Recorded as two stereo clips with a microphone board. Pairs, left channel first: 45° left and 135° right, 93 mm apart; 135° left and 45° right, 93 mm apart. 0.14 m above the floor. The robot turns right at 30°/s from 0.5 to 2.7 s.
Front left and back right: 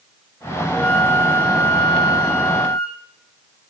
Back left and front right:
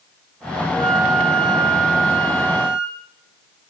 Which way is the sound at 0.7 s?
35° right.